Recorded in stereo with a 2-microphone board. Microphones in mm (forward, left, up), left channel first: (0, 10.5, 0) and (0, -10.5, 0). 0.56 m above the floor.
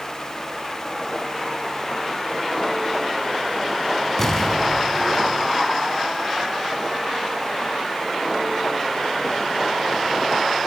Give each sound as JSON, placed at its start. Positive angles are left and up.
{"t": 4.2, "sound": "an explosion", "side_deg": 15, "distance_m": 5.5}